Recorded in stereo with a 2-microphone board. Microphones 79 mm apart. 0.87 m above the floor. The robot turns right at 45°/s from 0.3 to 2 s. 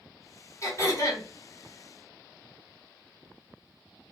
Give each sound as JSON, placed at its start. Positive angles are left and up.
{"t": 0.6, "sound": "throat clearing", "side_deg": 40, "distance_m": 1.1}